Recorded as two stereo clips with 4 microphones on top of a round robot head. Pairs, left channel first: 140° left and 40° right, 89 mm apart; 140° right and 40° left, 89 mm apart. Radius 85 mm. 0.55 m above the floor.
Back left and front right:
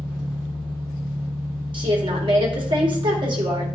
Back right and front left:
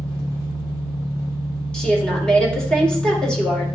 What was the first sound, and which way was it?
An engine running, 125° right.